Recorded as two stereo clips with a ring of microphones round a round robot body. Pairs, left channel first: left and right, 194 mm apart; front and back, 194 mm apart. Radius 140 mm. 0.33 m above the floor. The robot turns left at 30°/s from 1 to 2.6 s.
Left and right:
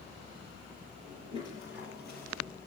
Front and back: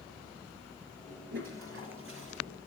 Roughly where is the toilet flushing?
Behind.